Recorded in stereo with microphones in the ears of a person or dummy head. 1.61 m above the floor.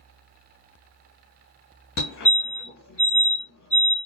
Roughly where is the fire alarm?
Left.